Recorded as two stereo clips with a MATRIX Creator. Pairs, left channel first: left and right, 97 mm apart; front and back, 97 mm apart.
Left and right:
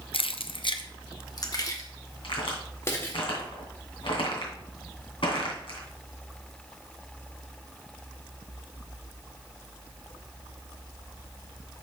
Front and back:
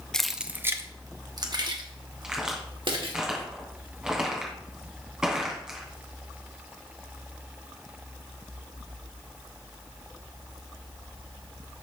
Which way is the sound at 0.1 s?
85° left.